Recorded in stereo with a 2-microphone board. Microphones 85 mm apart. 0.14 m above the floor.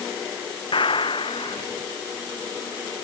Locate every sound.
0.7 s a gunshot: 80° left